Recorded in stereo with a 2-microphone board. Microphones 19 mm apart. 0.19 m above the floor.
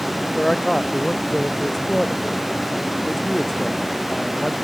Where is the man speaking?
30° left (ahead or behind).